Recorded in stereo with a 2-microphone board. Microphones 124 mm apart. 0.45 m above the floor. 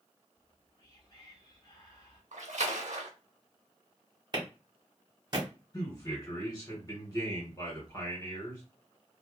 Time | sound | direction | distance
0.3 | whispering | 35° left (ahead or behind) | 1.0 m
2.3 | a splash | 80° right | 0.6 m
4.3 | a clap | 35° right (ahead or behind) | 1.3 m
5.7 | a man speaking | 30° left (ahead or behind) | 1.6 m